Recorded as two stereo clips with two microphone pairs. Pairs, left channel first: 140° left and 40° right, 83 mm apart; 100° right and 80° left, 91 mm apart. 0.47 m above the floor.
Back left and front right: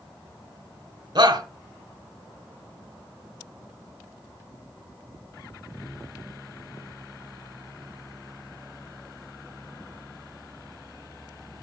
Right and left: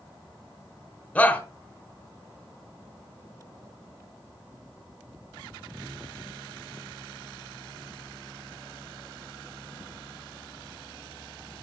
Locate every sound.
1.1 s a shout: 30° right, 1.5 m